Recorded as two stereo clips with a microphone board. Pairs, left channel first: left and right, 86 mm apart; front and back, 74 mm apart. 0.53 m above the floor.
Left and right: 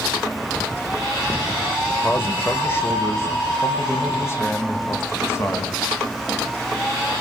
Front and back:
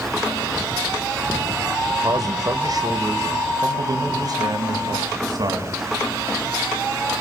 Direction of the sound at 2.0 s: 155° left.